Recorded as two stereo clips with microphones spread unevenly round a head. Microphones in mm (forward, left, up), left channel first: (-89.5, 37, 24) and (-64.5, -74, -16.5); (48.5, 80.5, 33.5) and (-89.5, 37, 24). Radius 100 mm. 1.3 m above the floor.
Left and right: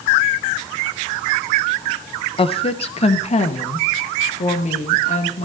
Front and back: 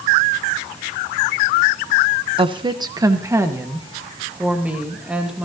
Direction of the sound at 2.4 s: 145° left.